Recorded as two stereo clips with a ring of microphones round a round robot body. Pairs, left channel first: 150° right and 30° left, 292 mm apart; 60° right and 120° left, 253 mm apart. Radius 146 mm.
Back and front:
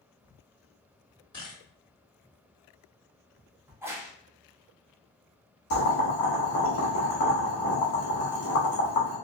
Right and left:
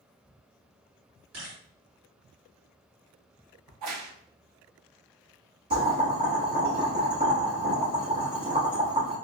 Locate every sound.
1.3 s a camera shutter: 140° left, 1.6 m
3.7 s a crack: 110° left, 0.6 m
5.7 s boiling: straight behind, 1.1 m